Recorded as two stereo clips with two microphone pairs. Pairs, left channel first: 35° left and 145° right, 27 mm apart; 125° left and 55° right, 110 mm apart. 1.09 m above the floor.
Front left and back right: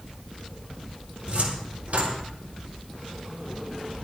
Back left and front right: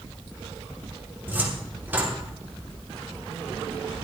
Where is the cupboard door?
125° right, 3 m.